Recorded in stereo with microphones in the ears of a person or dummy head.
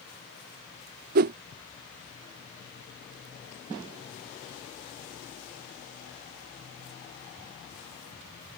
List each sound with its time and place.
1.1 s a whoosh: 40° right (ahead or behind)